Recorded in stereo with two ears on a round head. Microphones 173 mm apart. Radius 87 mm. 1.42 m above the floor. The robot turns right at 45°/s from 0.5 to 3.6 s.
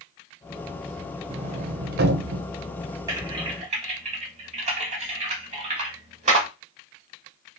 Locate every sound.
1.3 s a sliding door: 30° right (ahead or behind), 0.6 m; by 2.5 s 60° right (ahead or behind), 0.6 m
3.1 s typing on a keyboard: 15° right (ahead or behind), 1.6 m; by 6.5 s 35° right (ahead or behind), 1.6 m